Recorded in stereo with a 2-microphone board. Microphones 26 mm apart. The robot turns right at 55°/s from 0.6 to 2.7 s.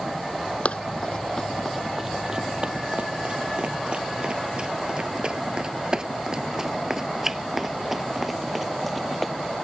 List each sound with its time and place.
0.7 s running footsteps: 55° left (ahead or behind); by 9.3 s 5° left (ahead or behind)